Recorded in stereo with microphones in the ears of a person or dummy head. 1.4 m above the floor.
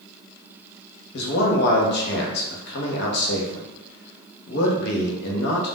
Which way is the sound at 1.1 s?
65° left (ahead or behind).